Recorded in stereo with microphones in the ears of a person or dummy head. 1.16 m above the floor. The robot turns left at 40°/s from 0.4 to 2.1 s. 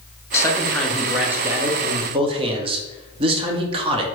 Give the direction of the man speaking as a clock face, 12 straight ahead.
11 o'clock.